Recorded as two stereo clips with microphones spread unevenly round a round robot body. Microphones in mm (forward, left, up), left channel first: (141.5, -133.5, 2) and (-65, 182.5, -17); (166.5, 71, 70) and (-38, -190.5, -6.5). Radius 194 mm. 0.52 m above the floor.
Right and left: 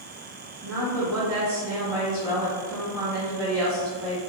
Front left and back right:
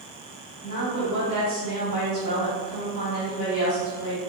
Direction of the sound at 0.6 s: 135° left.